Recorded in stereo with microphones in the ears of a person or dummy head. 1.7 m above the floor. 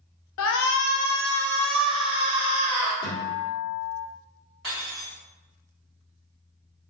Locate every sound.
0.4 s a shout: 70° left (ahead or behind), 0.5 m; by 2.9 s 15° right (ahead or behind), 1.3 m
3.0 s a guitar: 30° left (ahead or behind), 1.1 m
4.6 s cutlery clinking: centre (ahead or behind), 0.9 m